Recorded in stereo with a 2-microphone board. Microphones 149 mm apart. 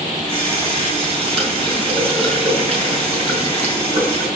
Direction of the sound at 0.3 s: 35° right (ahead or behind).